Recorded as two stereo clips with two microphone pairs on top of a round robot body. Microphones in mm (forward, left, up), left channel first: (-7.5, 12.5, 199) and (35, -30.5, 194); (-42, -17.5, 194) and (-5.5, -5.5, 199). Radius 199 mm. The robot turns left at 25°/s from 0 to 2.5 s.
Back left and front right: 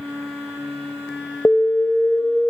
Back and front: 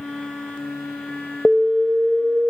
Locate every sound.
1.4 s an alarm: 85° left, 1.6 m; by 2.5 s 60° left, 1.6 m